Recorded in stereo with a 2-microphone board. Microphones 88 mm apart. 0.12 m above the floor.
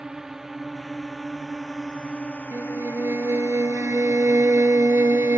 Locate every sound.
0.0 s a drone: 10° right (ahead or behind); by 5.4 s 60° left (ahead or behind)
2.5 s a violin: 30° right (ahead or behind)